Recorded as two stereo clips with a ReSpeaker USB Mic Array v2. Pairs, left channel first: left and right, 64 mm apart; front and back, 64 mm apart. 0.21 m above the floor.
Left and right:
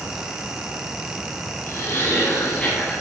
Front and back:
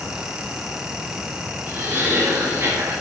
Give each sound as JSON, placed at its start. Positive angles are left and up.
{"t": 1.7, "sound": "laughter", "azimuth_deg": 135, "distance_m": 3.0}